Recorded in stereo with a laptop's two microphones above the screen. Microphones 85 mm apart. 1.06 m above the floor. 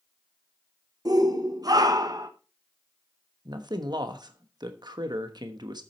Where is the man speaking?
65° right (ahead or behind), 1.2 m.